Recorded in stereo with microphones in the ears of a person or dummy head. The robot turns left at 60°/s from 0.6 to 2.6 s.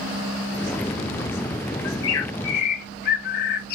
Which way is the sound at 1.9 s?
100° left.